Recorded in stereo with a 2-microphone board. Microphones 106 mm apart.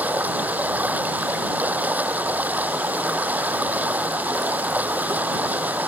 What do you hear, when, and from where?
0.0 s running water: 15° right (ahead or behind)